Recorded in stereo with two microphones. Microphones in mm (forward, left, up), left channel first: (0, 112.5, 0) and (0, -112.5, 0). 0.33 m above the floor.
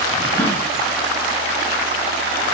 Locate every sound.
0.4 s a gasp: 10° left (ahead or behind), 2.0 m